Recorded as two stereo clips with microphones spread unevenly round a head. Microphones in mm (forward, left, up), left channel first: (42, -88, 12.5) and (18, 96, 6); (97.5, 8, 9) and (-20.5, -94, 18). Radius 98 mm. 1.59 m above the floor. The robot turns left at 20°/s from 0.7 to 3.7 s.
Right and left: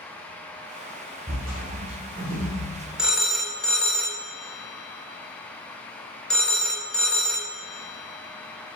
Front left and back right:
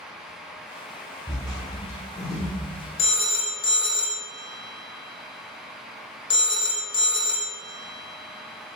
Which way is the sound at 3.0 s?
10° left.